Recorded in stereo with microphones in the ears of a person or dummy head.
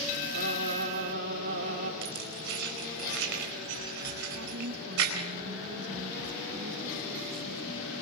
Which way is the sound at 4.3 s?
85° right.